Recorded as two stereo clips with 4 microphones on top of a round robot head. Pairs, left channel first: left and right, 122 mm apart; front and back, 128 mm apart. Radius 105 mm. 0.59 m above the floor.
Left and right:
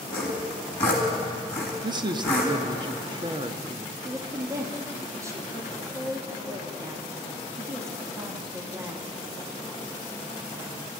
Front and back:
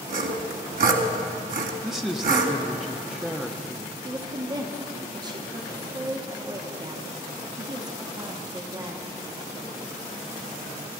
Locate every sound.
0.1 s sawing: 170° left, 1.8 m
1.8 s a man speaking: 90° right, 1.0 m
4.0 s a woman speaking: 145° right, 1.4 m